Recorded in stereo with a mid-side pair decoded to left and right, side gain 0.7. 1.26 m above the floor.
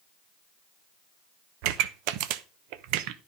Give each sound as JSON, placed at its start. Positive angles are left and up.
{"t": 1.6, "sound": "a pop", "azimuth_deg": -70, "distance_m": 0.9}